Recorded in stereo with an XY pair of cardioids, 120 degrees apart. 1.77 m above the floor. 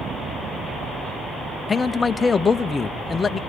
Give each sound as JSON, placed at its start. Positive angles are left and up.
{"t": 1.7, "sound": "a man speaking", "azimuth_deg": 25, "distance_m": 0.9}